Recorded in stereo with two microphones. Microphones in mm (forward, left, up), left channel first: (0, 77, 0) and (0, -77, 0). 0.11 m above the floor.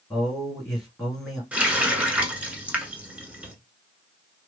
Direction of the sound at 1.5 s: 10° right (ahead or behind).